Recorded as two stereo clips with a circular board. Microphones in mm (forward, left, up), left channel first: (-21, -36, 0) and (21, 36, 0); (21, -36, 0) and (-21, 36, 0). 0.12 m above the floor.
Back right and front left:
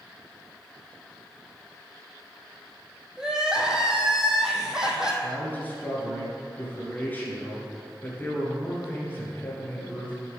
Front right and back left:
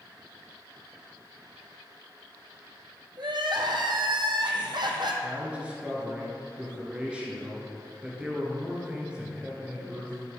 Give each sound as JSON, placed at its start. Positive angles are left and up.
{"t": 3.2, "sound": "crying", "azimuth_deg": 140, "distance_m": 1.0}
{"t": 5.2, "sound": "a man speaking", "azimuth_deg": -170, "distance_m": 1.7}